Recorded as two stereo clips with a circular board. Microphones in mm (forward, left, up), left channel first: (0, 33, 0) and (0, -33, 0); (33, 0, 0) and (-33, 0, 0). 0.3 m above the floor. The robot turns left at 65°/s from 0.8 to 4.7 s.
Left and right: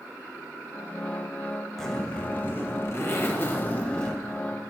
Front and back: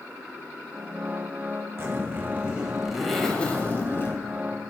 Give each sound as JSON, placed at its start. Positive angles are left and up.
{"t": 1.8, "sound": "a zipper", "azimuth_deg": 170, "distance_m": 1.4}